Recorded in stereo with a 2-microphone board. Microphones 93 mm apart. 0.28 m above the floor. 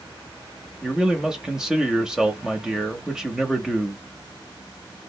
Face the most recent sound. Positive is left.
turn(degrees=-5)  # may be behind; listen again after turning